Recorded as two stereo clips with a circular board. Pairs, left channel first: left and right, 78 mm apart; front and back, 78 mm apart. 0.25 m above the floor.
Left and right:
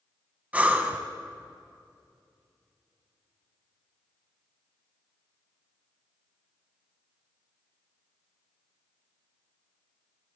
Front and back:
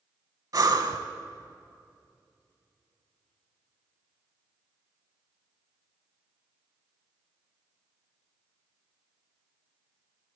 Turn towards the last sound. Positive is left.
turn(degrees=-155)